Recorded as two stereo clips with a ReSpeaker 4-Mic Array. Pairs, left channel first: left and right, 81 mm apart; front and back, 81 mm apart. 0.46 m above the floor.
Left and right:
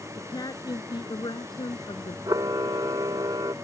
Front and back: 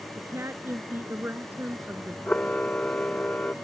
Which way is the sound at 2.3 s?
70° right.